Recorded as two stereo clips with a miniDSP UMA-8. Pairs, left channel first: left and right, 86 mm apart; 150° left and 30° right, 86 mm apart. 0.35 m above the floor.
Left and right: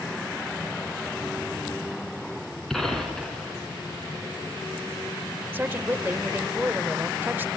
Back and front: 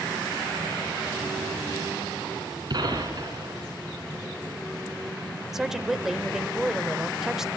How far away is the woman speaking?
About 0.9 m.